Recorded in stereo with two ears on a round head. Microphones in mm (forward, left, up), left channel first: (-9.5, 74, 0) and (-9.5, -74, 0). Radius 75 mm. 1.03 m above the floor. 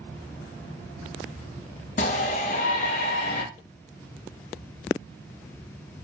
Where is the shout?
45° left (ahead or behind), 0.8 m.